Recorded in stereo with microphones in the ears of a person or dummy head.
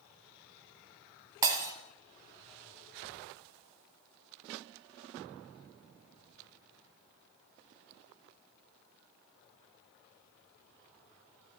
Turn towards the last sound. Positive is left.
turn(degrees=-20)  # may be behind; listen again after turning